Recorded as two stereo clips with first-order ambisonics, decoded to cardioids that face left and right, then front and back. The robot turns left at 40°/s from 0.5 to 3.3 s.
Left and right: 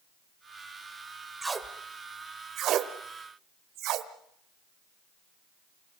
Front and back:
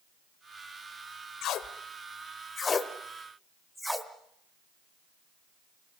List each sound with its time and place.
1.4 s tape being pulled: 15° right, 1.3 m; by 4.1 s 90° right, 1.3 m